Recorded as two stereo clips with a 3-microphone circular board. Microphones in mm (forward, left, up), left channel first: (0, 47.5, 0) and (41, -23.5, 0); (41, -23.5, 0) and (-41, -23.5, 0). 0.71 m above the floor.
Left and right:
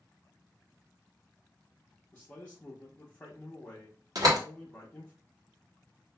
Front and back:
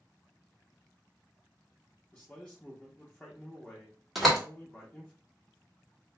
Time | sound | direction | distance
2.1 | a man speaking | 60° left | 0.8 m
4.2 | a door slam | 90° right | 1.3 m